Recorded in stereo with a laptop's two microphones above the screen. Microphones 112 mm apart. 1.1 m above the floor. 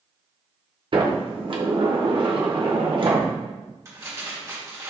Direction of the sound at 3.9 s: 30° right (ahead or behind).